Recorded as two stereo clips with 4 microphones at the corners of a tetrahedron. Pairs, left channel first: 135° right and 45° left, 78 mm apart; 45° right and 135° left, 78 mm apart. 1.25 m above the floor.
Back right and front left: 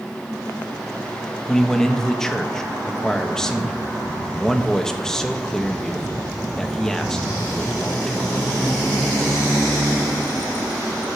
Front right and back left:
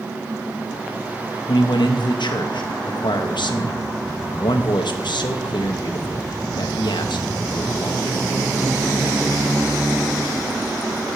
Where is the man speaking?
50° right, 1.1 m.